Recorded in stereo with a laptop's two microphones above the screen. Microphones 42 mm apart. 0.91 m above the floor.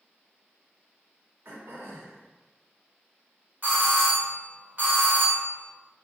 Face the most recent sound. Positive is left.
turn(degrees=-40)  # may be behind; listen again after turning